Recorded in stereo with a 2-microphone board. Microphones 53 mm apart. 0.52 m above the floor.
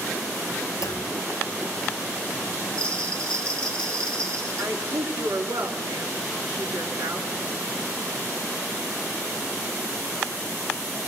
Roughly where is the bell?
Centre.